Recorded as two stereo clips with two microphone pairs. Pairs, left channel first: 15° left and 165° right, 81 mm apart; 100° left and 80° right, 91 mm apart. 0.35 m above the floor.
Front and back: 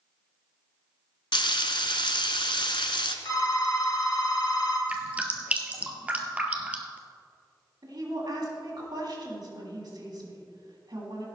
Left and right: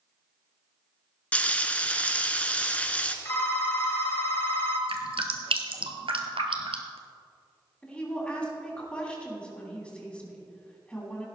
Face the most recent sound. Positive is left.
turn(degrees=175)